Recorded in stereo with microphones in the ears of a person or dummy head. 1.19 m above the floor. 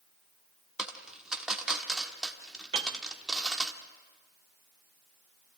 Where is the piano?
30° right (ahead or behind), 0.7 m.